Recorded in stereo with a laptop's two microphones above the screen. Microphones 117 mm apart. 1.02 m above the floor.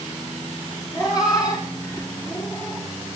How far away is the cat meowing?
About 3.5 m.